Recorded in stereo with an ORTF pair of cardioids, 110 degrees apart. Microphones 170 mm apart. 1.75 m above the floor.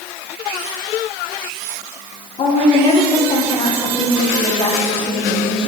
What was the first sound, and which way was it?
A woman speaking, 30° left.